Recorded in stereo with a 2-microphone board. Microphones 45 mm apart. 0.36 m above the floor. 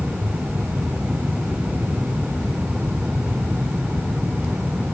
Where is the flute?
No flute in this recording.